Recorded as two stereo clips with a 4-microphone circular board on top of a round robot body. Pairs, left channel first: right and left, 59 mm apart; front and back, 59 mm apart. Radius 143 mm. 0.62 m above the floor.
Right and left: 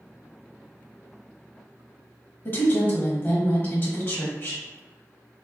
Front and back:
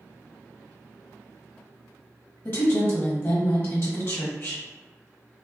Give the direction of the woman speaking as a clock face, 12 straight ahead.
2 o'clock.